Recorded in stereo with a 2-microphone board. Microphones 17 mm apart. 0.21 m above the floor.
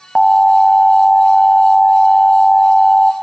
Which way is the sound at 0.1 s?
20° left (ahead or behind).